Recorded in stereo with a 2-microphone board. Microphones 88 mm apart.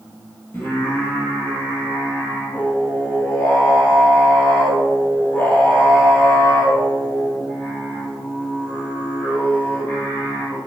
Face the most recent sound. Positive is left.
turn(degrees=25)  # may be behind; listen again after turning